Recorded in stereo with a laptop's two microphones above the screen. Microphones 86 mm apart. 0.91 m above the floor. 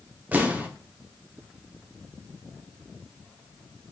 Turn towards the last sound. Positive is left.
turn(degrees=-20)  # may be behind; listen again after turning